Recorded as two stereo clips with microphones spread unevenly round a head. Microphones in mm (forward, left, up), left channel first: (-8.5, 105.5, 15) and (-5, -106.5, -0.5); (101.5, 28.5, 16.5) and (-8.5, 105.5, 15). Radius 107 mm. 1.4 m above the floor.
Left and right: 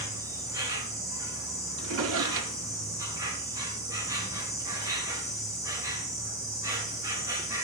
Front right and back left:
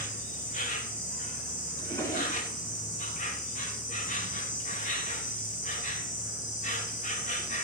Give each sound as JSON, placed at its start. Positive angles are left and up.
{"t": 0.0, "sound": "an insect", "azimuth_deg": -15, "distance_m": 4.0}
{"t": 1.8, "sound": "a drawer", "azimuth_deg": -110, "distance_m": 1.8}